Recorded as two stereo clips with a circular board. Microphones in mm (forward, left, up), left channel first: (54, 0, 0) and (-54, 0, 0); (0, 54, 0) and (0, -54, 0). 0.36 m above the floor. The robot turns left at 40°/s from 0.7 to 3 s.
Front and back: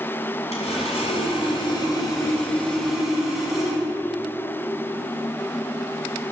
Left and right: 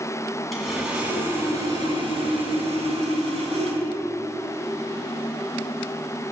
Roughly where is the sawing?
Ahead.